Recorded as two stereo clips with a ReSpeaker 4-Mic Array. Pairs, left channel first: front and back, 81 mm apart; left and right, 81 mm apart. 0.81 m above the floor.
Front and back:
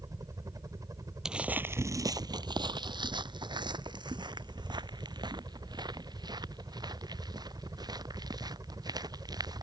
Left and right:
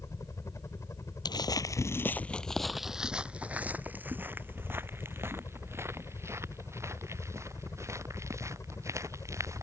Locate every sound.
0.0 s a helicopter: 140° left
1.2 s footsteps: 100° left; by 9.6 s 145° right